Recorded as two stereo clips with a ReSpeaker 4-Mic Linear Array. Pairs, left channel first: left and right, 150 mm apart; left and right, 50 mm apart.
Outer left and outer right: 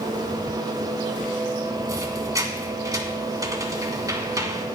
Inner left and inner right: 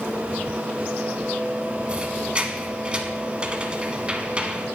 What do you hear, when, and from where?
1.9 s a squeak: 25° right (ahead or behind), 1.3 m